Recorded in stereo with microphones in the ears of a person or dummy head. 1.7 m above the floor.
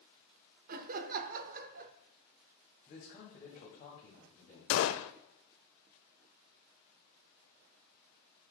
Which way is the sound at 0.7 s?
50° right (ahead or behind).